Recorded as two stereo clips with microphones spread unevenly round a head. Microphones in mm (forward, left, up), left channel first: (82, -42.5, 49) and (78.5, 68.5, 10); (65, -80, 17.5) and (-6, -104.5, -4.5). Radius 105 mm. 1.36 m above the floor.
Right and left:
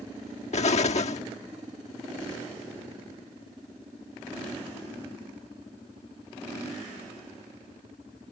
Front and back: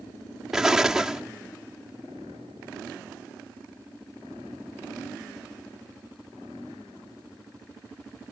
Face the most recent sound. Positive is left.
turn(degrees=-75)